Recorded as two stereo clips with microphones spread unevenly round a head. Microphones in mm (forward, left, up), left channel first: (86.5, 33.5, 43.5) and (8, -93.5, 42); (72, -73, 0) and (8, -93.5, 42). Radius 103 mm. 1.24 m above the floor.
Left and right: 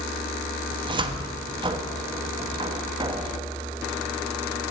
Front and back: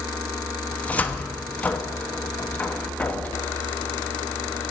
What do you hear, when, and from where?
0.7 s a cupboard door: 65° right, 1.1 m